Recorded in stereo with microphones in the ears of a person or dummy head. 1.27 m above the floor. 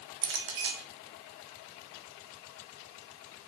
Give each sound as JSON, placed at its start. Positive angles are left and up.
{"t": 0.2, "sound": "a clink", "side_deg": -65, "distance_m": 1.7}